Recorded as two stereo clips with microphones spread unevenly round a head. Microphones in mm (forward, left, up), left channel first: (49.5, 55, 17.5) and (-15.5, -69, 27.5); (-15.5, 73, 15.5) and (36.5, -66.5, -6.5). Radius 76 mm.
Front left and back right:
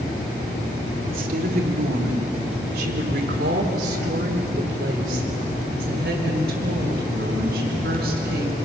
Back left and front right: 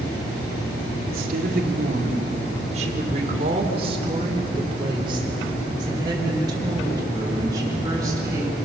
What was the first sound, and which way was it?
A woman speaking, 100° right.